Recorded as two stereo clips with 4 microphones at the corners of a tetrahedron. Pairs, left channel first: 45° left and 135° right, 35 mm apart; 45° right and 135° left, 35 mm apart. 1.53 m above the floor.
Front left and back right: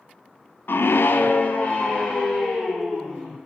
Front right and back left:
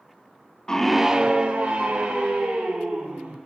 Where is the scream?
30° left, 0.6 m; by 3.4 s 110° left, 3 m.